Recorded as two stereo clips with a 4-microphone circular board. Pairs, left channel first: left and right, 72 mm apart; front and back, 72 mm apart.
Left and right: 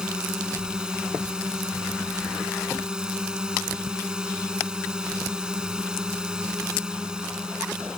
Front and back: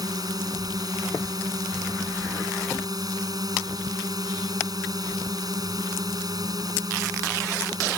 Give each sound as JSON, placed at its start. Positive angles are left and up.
{"t": 0.0, "sound": "a drone", "azimuth_deg": -170}